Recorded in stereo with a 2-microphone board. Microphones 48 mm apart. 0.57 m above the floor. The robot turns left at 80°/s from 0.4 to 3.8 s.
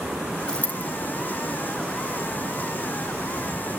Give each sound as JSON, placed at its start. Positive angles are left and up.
{"t": 0.5, "sound": "a dropped coin", "side_deg": 15, "distance_m": 1.6}